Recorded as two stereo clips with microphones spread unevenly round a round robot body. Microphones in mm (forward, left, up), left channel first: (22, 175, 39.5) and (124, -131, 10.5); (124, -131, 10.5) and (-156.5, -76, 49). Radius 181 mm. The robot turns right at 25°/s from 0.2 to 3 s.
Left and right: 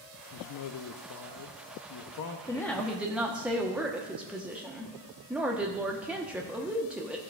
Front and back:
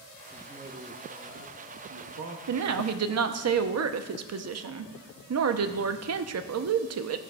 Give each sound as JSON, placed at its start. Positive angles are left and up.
{"t": 0.3, "sound": "a man speaking", "azimuth_deg": 85, "distance_m": 0.6}
{"t": 2.5, "sound": "a woman speaking", "azimuth_deg": -170, "distance_m": 0.7}